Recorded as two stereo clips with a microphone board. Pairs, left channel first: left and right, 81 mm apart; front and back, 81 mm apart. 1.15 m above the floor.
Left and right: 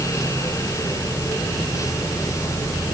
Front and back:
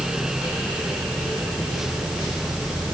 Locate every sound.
Only background noise.